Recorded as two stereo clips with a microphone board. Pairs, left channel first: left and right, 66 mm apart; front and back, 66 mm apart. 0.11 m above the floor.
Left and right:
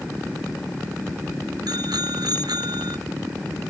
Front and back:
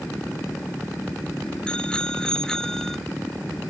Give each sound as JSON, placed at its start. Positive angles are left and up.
{"t": 1.7, "sound": "a bicycle bell", "azimuth_deg": -75}